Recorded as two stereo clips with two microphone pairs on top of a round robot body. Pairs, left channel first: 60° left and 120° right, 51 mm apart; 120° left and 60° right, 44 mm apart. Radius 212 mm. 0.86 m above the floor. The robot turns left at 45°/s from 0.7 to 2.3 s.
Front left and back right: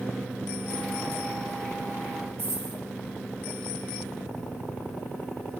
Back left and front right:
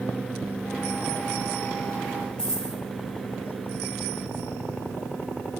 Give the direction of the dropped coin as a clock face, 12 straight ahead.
5 o'clock.